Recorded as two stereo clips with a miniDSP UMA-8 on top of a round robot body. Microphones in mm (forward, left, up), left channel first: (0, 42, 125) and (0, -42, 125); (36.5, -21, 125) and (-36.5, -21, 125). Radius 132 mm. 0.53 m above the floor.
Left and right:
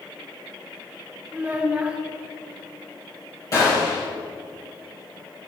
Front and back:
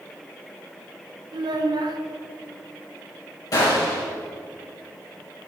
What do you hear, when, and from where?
1.3 s a child speaking: 165° right, 1.2 m
3.5 s a gunshot: 40° left, 3.5 m